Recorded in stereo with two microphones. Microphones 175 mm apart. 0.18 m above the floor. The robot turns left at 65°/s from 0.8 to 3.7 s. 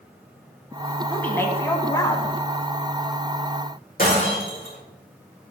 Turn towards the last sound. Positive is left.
turn(degrees=55)  # may be behind; listen again after turning